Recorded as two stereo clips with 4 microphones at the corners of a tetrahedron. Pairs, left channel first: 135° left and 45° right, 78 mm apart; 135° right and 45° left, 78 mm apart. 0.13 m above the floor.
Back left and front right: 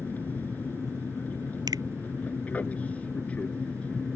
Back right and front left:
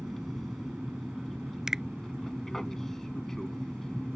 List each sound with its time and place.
0.0 s an aircraft: 140° left; by 4.2 s 160° left
1.7 s a finger snap: 35° right